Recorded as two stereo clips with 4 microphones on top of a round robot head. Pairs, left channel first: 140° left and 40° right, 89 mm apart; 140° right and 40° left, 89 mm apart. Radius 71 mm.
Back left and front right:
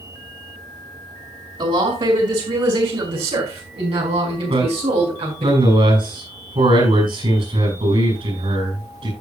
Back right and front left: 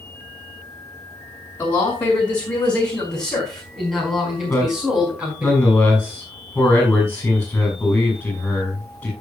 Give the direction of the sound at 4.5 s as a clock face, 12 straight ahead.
2 o'clock.